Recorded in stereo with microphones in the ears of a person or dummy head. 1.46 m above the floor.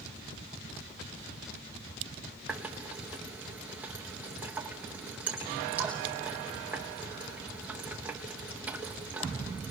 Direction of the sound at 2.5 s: 10° right (ahead or behind).